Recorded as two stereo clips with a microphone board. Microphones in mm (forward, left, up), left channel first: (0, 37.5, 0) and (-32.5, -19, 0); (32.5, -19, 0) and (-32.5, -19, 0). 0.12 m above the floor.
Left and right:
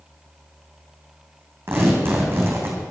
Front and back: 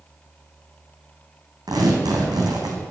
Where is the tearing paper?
175° right, 3 m.